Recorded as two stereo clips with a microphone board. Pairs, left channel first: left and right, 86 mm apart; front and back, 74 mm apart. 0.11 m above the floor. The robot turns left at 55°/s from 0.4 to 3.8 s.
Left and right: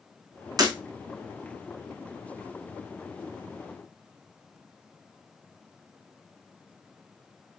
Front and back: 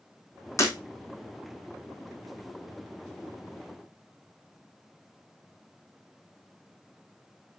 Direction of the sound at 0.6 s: 50° right.